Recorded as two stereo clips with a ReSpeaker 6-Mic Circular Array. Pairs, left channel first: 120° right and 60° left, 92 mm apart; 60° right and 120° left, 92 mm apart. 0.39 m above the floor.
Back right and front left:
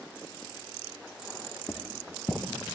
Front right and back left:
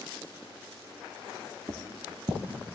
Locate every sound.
1.7 s footsteps: 165° left, 1.3 m